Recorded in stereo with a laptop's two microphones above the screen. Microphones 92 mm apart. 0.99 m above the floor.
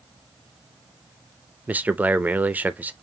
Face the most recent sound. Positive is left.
turn(degrees=-15)  # may be behind; listen again after turning